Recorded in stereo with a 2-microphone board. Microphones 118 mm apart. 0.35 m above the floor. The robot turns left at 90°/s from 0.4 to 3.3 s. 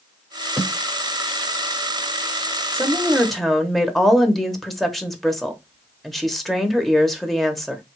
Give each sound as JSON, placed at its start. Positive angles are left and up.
{"t": 0.6, "sound": "a snare drum", "side_deg": -20, "distance_m": 3.0}
{"t": 2.7, "sound": "a woman speaking", "side_deg": -20, "distance_m": 1.0}